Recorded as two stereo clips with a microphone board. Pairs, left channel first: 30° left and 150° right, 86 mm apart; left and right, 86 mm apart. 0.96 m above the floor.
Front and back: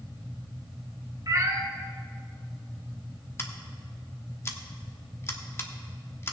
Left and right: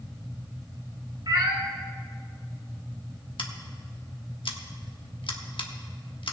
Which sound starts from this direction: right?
A cat meowing, at 1.3 s.